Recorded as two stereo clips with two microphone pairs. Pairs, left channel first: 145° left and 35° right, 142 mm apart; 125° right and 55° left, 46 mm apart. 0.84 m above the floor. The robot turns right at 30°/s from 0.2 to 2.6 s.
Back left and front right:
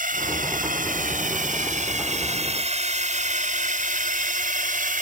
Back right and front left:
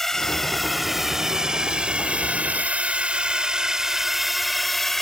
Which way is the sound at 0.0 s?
45° right.